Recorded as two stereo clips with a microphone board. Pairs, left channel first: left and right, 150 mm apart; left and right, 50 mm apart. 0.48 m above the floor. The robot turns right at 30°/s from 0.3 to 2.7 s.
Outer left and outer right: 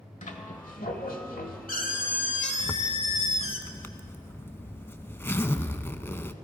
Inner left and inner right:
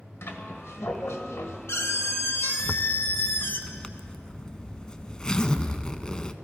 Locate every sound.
0.2 s a squeak: 60° left, 1.2 m; by 3.6 s 135° left, 1.2 m
2.6 s a zipper: 15° left (ahead or behind), 0.6 m